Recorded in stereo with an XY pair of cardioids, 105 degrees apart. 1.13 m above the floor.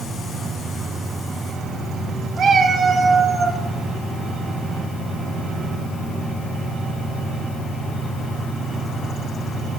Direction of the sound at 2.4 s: 60° right.